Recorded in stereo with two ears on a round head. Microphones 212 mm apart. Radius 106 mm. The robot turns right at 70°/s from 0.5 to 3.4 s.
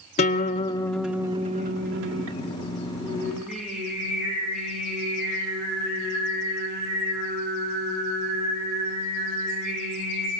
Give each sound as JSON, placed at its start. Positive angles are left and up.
{"t": 0.2, "sound": "a guitar", "azimuth_deg": 145, "distance_m": 1.8}
{"t": 3.0, "sound": "singing", "side_deg": 30, "distance_m": 9.5}